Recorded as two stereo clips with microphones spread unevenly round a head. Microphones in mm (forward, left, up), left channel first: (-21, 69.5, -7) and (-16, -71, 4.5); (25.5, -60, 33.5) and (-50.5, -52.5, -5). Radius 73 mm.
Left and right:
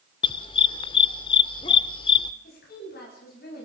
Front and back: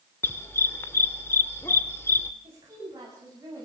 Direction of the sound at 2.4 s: 110° left.